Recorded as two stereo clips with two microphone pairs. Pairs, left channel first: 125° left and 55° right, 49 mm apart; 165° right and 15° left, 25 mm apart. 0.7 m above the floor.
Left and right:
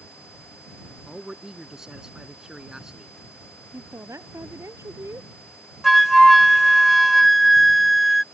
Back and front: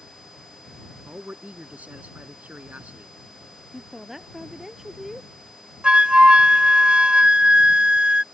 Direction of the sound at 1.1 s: 20° left.